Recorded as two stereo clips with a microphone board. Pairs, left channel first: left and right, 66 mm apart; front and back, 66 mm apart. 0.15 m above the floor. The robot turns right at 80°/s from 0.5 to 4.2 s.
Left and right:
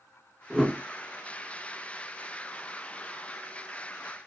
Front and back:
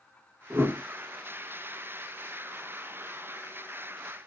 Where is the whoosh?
175° right, 0.7 m; by 0.8 s 150° right, 0.7 m.